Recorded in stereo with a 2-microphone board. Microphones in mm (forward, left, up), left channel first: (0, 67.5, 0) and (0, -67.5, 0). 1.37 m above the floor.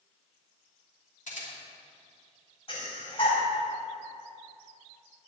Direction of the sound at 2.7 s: 45° left (ahead or behind).